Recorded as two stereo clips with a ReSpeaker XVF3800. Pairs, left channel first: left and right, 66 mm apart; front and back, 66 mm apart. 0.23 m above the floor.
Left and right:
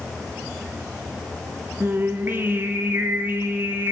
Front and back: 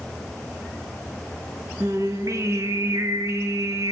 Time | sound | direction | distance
1.8 | singing | 145° right | 0.8 m